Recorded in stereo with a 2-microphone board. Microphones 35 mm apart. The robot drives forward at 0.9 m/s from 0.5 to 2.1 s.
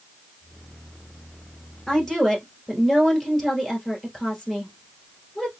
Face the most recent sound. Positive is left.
turn(degrees=5)  # may be behind; listen again after turning